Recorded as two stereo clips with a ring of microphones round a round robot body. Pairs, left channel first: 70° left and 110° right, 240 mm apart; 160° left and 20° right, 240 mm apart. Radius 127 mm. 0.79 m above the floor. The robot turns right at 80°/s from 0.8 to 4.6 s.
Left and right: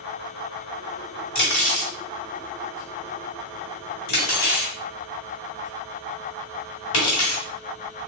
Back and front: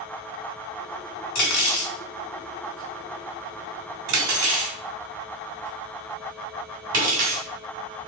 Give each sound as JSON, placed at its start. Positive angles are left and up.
{"t": 1.4, "sound": "cutlery clinking", "azimuth_deg": 140, "distance_m": 1.7}